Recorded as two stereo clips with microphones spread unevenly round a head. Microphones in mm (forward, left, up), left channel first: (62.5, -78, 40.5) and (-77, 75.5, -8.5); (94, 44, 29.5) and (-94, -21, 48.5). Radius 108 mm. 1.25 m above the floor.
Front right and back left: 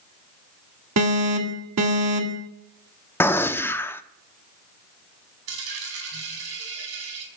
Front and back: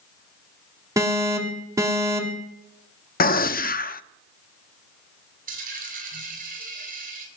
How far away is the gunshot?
About 0.6 m.